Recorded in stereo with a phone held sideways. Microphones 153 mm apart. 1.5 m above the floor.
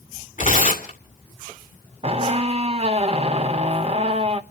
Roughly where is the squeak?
Right.